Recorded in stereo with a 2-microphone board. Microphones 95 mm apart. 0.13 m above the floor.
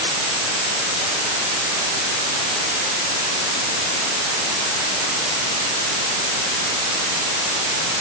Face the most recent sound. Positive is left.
No sound to turn to.